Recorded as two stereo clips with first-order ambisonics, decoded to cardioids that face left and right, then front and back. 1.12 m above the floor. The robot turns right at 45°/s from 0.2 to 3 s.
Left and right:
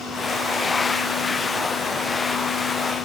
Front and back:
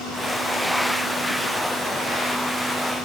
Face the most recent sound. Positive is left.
No sound to turn to.